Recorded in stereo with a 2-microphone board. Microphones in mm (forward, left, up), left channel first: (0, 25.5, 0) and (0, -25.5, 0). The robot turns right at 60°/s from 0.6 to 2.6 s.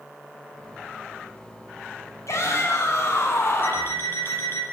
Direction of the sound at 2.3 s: 70° left (ahead or behind).